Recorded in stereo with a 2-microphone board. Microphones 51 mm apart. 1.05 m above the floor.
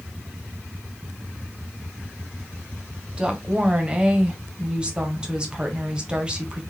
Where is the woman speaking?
20° right (ahead or behind), 0.8 m.